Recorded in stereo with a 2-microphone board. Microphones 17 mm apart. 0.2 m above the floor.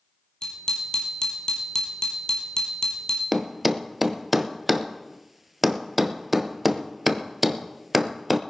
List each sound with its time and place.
0.4 s a bicycle bell: 40° left (ahead or behind), 4 m
3.3 s a thud: 10° right (ahead or behind), 0.9 m